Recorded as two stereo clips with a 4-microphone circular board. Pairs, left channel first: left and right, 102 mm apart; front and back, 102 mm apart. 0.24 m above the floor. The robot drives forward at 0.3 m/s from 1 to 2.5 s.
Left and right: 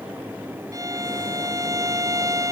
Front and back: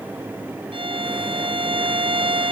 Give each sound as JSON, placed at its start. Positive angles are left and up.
{"t": 0.7, "sound": "a violin", "azimuth_deg": -150}